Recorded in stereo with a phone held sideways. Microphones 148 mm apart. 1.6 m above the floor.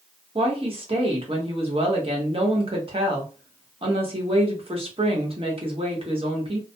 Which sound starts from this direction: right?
A woman speaking, at 0.3 s.